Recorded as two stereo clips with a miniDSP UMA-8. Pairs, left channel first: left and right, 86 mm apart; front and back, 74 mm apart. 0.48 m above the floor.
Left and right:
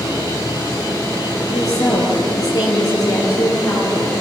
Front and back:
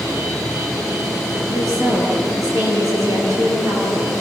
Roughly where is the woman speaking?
Behind left.